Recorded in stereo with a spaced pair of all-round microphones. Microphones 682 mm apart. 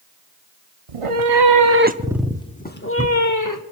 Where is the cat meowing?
55° right (ahead or behind), 0.8 m; by 3.6 s 30° left (ahead or behind), 1.5 m.